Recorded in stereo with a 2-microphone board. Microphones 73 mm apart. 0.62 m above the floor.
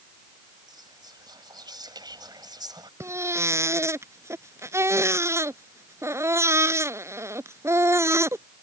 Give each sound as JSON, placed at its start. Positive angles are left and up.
{"t": 0.7, "sound": "whispering", "side_deg": -70}
{"t": 3.0, "sound": "a baby crying", "side_deg": -40}